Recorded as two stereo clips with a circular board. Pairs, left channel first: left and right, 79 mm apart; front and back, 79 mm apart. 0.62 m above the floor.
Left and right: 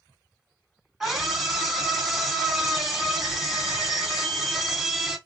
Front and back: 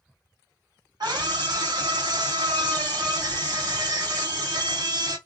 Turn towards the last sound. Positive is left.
turn(degrees=-175)